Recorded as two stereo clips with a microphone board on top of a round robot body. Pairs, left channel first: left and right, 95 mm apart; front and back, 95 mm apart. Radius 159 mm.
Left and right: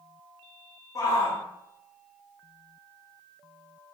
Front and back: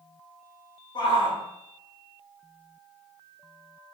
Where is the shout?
35° left, 2.5 m.